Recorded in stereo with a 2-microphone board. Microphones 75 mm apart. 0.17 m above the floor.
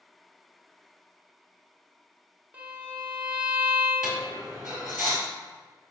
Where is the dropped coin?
5° right (ahead or behind), 1.3 m.